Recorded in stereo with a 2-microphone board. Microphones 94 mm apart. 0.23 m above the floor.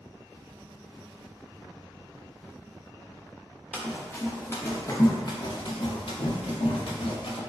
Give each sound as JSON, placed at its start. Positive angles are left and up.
{"t": 3.7, "sound": "running footsteps", "side_deg": 10, "distance_m": 1.3}